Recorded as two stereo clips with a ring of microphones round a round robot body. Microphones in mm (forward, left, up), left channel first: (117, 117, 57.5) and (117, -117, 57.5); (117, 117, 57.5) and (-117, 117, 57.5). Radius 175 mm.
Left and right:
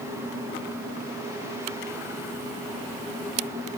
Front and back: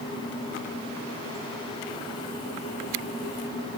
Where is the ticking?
No ticking in this recording.